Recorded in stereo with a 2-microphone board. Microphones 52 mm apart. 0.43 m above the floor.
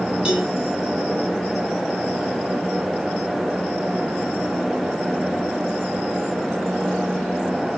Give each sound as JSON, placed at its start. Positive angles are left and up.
{"t": 0.2, "sound": "a cowbell", "side_deg": -10, "distance_m": 6.0}